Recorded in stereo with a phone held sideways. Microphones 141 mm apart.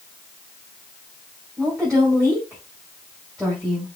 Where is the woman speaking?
Centre (ahead or behind), 4.5 m.